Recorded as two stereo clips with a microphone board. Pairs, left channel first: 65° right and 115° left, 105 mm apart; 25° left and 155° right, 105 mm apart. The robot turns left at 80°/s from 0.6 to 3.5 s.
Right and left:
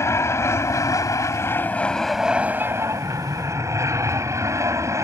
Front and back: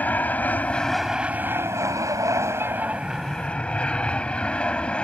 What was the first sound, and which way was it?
An aircraft, 35° right.